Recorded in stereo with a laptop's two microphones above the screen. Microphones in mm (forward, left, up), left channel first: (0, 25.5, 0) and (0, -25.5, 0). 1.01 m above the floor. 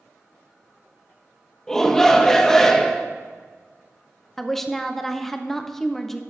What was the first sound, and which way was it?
A shout, 10° left (ahead or behind).